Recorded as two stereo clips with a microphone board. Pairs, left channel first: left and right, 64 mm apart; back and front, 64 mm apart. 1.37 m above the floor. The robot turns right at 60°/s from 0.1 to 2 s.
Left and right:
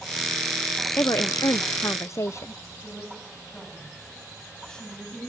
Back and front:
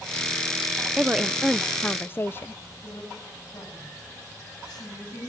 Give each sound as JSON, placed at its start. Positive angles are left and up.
{"t": 1.0, "sound": "a woman speaking", "azimuth_deg": 65, "distance_m": 0.6}
{"t": 2.8, "sound": "a woman speaking", "azimuth_deg": 170, "distance_m": 9.0}